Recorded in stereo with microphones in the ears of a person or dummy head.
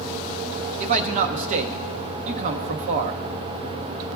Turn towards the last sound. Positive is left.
turn(degrees=-40)  # may be behind; listen again after turning